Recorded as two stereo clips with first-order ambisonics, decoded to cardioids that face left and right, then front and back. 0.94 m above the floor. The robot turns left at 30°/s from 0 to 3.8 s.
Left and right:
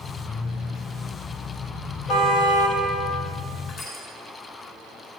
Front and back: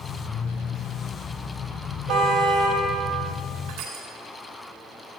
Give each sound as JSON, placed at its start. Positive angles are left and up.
{"t": 2.1, "sound": "a car horn", "azimuth_deg": 140, "distance_m": 3.0}
{"t": 3.7, "sound": "crushing", "azimuth_deg": 145, "distance_m": 4.0}